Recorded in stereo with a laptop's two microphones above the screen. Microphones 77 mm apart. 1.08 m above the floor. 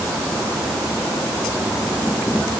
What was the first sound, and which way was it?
Only background noise.